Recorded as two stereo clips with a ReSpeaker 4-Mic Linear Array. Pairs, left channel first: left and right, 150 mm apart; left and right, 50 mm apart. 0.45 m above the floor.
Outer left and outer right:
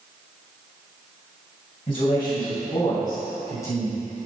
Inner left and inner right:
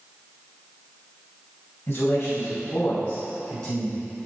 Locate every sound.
1.9 s a man speaking: 40° left (ahead or behind), 3 m; by 4.0 s 15° left (ahead or behind), 4.5 m